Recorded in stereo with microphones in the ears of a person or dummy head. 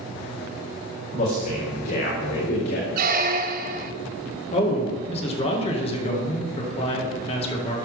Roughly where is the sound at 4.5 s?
Left.